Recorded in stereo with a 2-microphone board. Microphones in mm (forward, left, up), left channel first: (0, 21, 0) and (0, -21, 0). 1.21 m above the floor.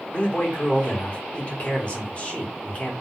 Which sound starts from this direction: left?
A man speaking, at 0.1 s.